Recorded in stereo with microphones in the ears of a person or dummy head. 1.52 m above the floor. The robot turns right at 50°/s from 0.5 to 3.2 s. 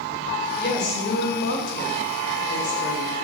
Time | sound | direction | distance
0.6 | a woman speaking | 50° left | 2.5 m